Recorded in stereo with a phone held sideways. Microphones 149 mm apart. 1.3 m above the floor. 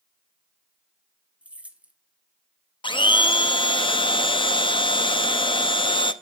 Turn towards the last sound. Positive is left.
turn(degrees=35)  # may be behind; listen again after turning